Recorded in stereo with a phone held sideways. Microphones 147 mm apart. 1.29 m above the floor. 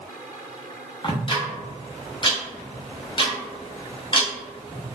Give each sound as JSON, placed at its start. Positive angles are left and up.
{"t": 1.0, "sound": "ticking", "side_deg": 35, "distance_m": 0.9}